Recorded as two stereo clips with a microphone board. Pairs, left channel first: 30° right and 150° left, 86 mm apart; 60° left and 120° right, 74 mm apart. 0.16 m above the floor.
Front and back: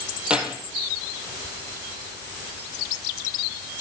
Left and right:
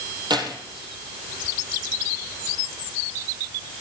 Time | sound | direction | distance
0.3 | keys jangling | 130° right | 3 m